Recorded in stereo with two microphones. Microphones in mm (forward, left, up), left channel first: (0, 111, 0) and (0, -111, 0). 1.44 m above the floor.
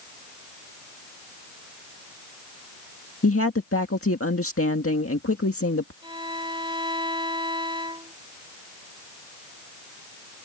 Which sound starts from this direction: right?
A violin, at 6.0 s.